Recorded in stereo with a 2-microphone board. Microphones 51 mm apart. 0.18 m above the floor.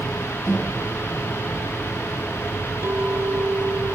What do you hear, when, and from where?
0.5 s a microwave: 5° left (ahead or behind), 5.5 m
2.8 s a clink: 65° right (ahead or behind), 3 m